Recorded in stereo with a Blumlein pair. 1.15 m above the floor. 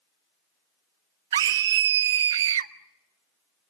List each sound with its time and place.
1.3 s a scream: 60° right, 0.8 m